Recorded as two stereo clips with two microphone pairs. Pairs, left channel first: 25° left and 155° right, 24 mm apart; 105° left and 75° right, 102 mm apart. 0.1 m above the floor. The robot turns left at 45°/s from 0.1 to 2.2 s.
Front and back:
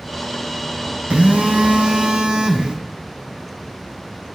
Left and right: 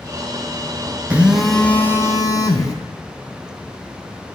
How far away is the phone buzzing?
About 1.2 m.